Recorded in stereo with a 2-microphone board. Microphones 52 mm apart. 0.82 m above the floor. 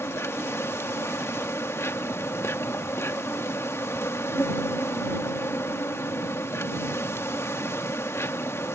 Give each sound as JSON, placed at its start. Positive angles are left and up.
{"t": 0.0, "sound": "an insect", "side_deg": 55}